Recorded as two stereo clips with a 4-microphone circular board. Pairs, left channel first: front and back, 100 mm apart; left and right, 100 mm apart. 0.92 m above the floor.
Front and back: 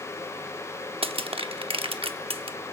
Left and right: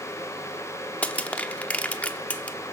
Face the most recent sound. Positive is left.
turn(degrees=165)